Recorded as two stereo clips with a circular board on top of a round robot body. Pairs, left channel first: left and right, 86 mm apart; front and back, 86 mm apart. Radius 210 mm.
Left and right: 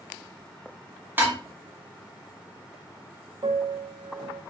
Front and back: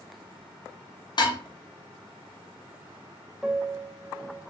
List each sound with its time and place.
1.2 s dishes clattering: 25° right, 1.0 m
3.4 s a piano: 95° right, 0.7 m